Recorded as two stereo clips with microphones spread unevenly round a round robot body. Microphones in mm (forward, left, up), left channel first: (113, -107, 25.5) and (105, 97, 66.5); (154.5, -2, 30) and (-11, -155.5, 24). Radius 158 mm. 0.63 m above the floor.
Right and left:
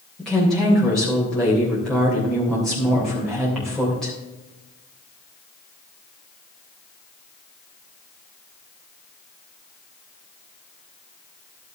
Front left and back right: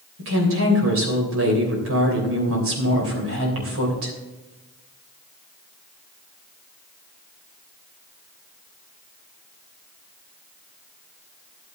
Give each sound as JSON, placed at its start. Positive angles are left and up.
{"t": 0.2, "sound": "a woman speaking", "azimuth_deg": -170, "distance_m": 3.0}